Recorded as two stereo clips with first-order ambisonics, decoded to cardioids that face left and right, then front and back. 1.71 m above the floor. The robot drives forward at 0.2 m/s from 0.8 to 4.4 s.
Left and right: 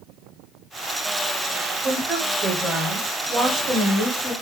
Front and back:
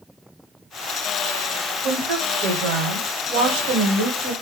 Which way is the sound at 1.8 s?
170° right.